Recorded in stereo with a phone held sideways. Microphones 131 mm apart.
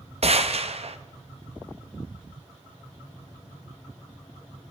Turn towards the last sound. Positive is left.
turn(degrees=-50)  # may be behind; listen again after turning